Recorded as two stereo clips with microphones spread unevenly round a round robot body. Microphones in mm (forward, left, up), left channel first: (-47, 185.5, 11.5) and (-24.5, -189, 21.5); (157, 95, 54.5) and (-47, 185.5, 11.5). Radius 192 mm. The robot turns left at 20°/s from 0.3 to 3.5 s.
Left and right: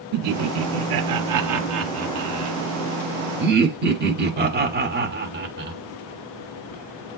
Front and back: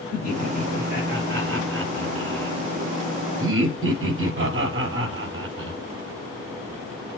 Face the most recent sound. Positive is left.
turn(degrees=-145)